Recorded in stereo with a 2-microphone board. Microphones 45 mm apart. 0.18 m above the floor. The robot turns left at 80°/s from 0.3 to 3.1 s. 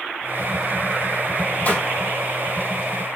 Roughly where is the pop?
Left.